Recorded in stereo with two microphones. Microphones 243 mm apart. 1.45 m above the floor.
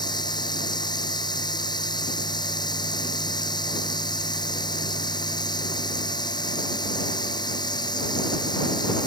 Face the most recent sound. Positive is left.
turn(degrees=15)  # may be behind; listen again after turning